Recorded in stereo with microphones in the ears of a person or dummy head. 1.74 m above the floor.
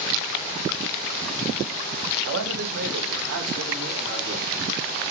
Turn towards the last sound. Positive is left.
turn(degrees=-60)  # may be behind; listen again after turning